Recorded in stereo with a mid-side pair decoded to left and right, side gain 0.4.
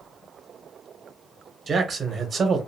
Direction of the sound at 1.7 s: 45° right.